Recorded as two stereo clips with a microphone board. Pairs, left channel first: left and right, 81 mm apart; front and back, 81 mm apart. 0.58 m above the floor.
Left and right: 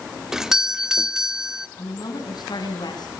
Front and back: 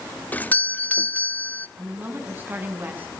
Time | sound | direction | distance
0.3 | a doorbell | 20° right | 1.0 m
1.8 | a woman speaking | 115° left | 7 m